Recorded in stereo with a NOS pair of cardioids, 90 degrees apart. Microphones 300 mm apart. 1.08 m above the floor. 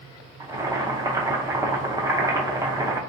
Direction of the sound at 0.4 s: 10° right.